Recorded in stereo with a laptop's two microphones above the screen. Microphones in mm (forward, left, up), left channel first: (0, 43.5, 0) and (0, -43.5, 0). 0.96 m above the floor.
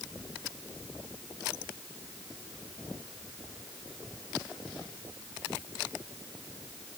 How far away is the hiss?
I don't hear a hiss.